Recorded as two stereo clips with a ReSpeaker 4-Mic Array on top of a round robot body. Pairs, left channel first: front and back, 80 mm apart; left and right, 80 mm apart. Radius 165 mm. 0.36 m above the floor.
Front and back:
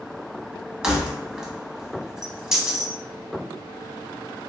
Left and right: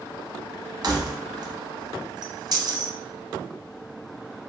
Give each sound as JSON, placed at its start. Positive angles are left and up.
{"t": 0.8, "sound": "keys jangling", "azimuth_deg": -100, "distance_m": 0.9}